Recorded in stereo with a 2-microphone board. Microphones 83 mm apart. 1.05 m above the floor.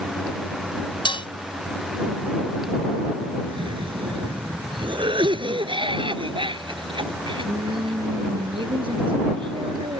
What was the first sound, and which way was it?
Dishes clattering, 80° left.